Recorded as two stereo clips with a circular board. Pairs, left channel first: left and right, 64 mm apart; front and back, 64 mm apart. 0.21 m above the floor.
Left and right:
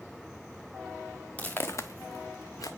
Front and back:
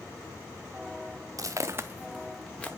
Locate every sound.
1.4 s footsteps: 155° left, 0.9 m; by 2.7 s 70° left, 1.1 m